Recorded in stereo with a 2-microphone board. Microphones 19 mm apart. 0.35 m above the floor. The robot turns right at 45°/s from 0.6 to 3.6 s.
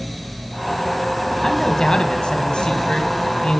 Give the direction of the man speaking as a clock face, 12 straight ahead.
11 o'clock.